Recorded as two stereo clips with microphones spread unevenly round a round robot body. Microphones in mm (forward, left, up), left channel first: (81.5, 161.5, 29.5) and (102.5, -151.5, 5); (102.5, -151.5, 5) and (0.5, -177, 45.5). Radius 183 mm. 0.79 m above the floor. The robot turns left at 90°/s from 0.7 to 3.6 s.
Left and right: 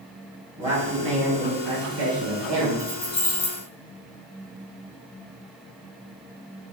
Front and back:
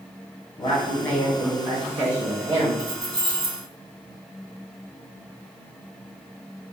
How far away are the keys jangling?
About 1.2 m.